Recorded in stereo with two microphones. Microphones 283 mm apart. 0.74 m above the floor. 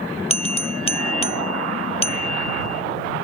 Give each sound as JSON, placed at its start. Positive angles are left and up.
{"t": 0.3, "sound": "a bell", "side_deg": 20}